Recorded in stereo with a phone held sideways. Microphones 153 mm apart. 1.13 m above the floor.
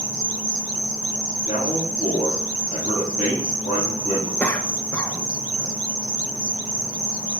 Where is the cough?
10° left (ahead or behind), 0.7 m.